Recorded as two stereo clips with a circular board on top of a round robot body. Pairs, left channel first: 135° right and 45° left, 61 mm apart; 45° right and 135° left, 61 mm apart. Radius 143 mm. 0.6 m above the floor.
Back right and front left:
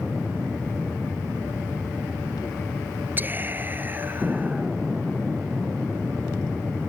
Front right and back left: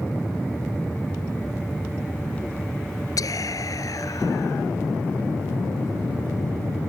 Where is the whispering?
15° right.